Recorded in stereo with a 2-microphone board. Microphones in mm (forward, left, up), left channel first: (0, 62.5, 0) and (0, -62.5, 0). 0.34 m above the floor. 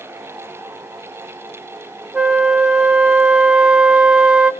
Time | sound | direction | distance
2.1 | a flute | 10° right (ahead or behind) | 0.6 m